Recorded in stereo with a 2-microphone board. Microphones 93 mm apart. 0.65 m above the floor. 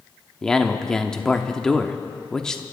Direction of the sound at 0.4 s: 5° left (ahead or behind).